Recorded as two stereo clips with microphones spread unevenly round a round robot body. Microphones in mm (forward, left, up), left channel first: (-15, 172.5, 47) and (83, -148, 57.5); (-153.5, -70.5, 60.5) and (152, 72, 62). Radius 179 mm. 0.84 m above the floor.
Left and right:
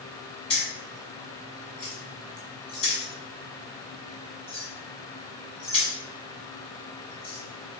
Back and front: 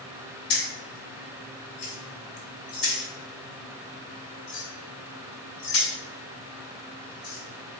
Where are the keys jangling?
Straight behind, 1.6 m.